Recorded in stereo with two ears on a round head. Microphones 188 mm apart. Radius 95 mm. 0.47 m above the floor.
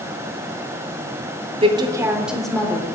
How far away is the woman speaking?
About 0.9 m.